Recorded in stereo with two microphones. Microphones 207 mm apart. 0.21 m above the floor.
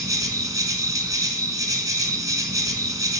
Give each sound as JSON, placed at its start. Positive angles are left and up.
{"t": 0.0, "sound": "an insect", "side_deg": -15, "distance_m": 0.8}